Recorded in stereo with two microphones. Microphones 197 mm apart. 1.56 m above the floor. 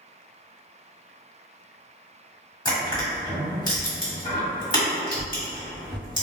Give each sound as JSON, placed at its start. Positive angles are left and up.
{"t": 2.6, "sound": "crushing", "side_deg": 25, "distance_m": 1.6}